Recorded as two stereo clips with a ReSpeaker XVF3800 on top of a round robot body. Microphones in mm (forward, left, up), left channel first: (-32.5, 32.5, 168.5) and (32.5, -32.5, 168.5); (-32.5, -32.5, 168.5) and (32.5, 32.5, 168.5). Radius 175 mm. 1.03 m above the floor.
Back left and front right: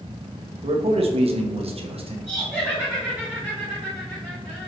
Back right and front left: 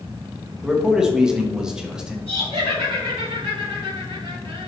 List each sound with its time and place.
0.6 s a man speaking: 40° right, 1.6 m
2.3 s laughter: 35° left, 3 m